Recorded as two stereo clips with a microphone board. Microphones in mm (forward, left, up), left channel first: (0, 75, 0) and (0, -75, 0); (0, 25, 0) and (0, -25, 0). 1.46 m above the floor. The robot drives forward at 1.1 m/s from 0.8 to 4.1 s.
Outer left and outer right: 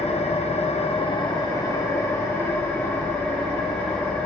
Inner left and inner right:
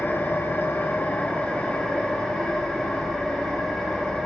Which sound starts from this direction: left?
An engine running, at 0.0 s.